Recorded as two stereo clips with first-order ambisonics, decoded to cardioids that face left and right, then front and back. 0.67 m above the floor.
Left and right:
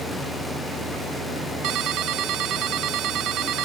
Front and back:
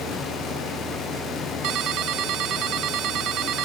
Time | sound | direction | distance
1.6 | a ringtone | 135° right | ?